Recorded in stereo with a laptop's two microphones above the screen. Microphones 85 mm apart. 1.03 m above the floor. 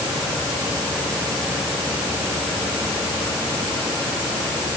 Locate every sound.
Only background noise.